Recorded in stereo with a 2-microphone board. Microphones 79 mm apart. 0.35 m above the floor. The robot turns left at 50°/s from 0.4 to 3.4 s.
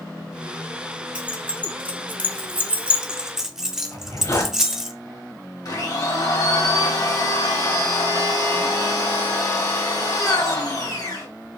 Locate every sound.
1.1 s keys jangling: 15° right (ahead or behind), 0.6 m; by 4.9 s 5° right (ahead or behind), 0.6 m
3.9 s a zipper: 50° left (ahead or behind), 1.8 m
5.7 s a blender: 55° left (ahead or behind), 2 m